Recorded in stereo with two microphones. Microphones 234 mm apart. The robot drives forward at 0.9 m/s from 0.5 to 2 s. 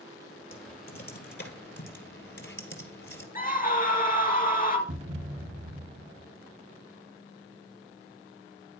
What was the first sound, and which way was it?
Typing on a keyboard, 40° left (ahead or behind).